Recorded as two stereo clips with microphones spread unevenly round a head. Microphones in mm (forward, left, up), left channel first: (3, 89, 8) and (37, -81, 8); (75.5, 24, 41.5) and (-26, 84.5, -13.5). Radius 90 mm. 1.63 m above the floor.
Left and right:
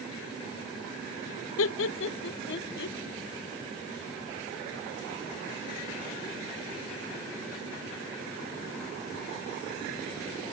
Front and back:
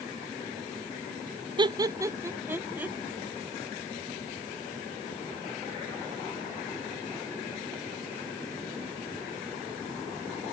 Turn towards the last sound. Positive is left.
turn(degrees=75)